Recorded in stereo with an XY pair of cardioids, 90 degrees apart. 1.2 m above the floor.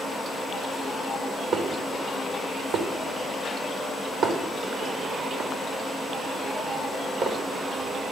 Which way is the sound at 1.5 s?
60° right.